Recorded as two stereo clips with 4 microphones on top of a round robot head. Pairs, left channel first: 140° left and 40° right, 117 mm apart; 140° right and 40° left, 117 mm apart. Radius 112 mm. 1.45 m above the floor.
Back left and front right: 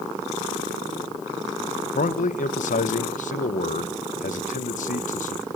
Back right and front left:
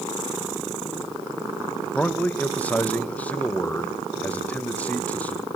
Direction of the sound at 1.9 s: 140° left.